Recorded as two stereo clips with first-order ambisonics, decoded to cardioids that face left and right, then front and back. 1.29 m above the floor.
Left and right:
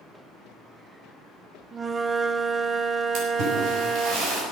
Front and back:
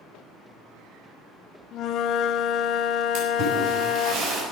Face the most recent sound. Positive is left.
turn(degrees=-130)